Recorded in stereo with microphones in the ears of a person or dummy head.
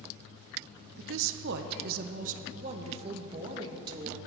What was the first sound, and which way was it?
A woman speaking, 70° right (ahead or behind).